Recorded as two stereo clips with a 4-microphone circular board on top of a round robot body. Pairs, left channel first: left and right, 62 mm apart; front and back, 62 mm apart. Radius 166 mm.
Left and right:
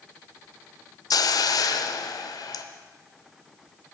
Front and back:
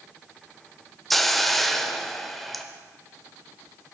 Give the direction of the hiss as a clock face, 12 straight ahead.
9 o'clock.